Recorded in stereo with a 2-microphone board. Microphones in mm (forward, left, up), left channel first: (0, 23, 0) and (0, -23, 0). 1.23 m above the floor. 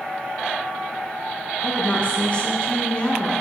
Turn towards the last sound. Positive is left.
turn(degrees=25)  # may be behind; listen again after turning